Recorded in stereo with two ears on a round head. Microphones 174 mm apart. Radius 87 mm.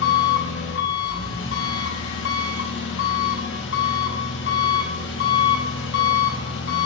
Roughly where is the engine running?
Left.